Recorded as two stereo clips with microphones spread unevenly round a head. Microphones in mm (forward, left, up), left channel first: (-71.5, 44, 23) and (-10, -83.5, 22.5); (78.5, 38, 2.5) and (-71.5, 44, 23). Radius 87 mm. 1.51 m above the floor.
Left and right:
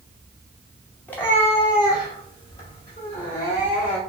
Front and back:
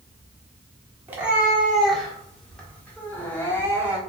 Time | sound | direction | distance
1.1 | a cat meowing | 175° left | 1.1 m